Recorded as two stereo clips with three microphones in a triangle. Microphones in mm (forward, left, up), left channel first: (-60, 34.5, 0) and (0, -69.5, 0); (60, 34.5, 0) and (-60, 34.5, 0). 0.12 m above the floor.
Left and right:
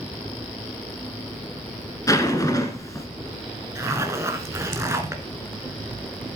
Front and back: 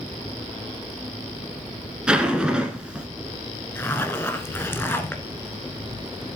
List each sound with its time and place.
2.1 s a zipper: 105° left, 1.7 m
3.8 s a zipper: 40° right, 1.3 m